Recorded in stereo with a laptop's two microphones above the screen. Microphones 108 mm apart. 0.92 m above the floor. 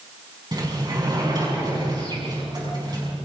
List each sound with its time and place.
0.5 s a sliding door: 40° right (ahead or behind), 6 m